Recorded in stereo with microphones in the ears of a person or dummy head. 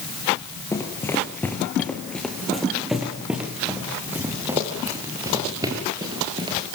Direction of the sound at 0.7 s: 15° left (ahead or behind).